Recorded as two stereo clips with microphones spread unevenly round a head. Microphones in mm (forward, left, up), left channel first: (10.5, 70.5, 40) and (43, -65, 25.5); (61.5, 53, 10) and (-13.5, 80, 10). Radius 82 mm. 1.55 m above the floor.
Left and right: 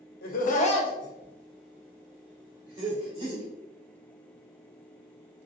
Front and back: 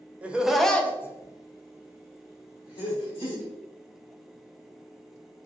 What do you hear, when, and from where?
0.2 s laughter: 85° left, 0.7 m; by 3.4 s 20° right, 1.7 m